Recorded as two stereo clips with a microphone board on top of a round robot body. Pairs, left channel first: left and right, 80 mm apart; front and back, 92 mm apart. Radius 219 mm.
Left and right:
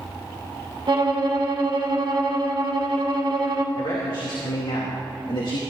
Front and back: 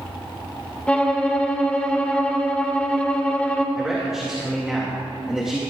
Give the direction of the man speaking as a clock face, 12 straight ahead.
9 o'clock.